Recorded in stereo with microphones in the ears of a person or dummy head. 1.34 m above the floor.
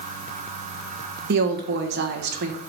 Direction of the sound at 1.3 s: 60° right (ahead or behind).